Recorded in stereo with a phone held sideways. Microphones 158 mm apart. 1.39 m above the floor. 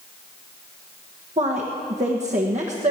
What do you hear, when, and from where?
1.4 s a woman speaking: 50° right (ahead or behind), 1.3 m